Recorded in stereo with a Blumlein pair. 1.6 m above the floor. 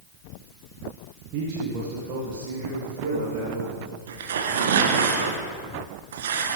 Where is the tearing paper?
60° right, 1.1 m.